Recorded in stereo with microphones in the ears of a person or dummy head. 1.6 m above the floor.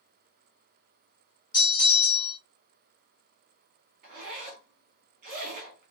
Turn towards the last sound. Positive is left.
turn(degrees=-45)  # may be behind; listen again after turning